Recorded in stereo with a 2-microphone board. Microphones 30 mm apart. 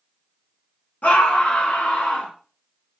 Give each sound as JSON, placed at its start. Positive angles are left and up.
{"t": 1.0, "sound": "a scream", "side_deg": 60, "distance_m": 0.8}